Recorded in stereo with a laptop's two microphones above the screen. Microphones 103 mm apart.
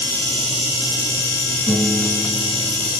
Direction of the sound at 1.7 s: 55° left (ahead or behind).